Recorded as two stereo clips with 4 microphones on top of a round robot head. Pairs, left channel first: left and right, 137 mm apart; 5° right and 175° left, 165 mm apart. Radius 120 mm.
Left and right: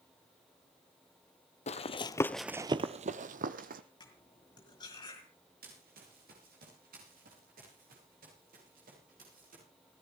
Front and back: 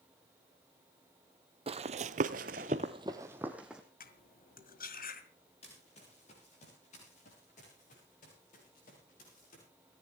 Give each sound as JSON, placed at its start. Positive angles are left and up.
{"t": 1.7, "sound": "running footsteps", "azimuth_deg": 120, "distance_m": 0.9}
{"t": 4.0, "sound": "cutlery clinking", "azimuth_deg": 25, "distance_m": 1.8}
{"t": 5.6, "sound": "running footsteps", "azimuth_deg": -65, "distance_m": 6.5}